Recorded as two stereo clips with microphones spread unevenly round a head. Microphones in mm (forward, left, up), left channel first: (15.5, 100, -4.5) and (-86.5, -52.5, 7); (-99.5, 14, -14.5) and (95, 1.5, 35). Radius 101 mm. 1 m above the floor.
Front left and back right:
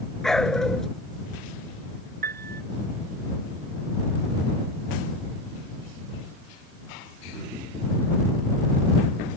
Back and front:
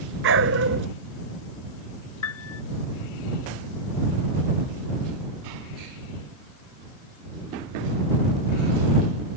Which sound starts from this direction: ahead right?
A dog barking, at 0.2 s.